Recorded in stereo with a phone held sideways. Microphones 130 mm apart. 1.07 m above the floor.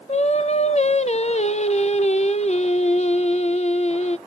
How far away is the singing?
About 0.5 m.